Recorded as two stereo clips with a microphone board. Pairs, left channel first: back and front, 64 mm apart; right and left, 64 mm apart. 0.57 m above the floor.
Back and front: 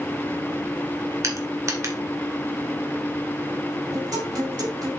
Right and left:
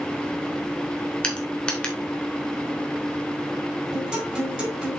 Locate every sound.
1.2 s crushing: 20° right, 1.9 m
3.9 s a guitar: 10° left, 5 m